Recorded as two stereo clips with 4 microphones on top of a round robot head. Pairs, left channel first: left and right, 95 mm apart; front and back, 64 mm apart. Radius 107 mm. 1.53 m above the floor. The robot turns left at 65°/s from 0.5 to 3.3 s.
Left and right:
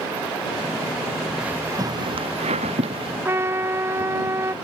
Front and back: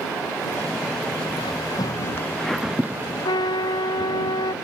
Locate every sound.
1.4 s footsteps: 10° right; by 3.1 s 130° right
3.2 s a trumpet: 25° right